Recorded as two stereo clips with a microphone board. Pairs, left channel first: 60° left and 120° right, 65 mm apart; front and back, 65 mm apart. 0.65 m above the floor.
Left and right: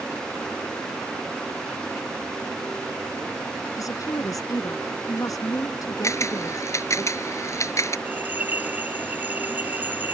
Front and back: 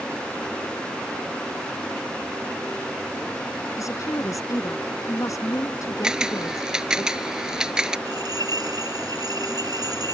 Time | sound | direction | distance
3.8 | a woman speaking | 35° left | ?
6.0 | a camera shutter | 100° left | ?
8.1 | a bell | straight behind | ?